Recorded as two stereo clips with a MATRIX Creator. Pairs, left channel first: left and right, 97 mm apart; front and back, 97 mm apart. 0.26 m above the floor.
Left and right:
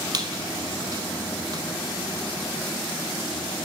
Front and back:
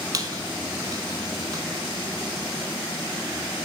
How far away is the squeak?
About 0.7 m.